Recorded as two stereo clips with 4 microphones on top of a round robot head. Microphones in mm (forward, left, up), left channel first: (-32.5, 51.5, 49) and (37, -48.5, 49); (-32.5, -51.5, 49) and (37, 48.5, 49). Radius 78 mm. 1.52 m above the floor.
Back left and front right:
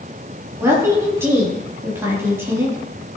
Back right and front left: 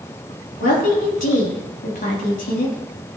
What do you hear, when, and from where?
0.6 s a woman speaking: 125° right, 4 m